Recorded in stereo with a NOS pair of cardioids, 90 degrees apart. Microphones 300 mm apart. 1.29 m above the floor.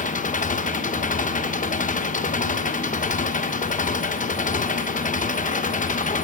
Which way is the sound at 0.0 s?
25° left.